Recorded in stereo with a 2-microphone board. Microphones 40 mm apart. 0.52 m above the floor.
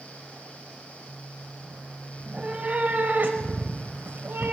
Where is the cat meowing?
25° right (ahead or behind), 1.6 m; by 4.5 s 65° right (ahead or behind), 1.3 m.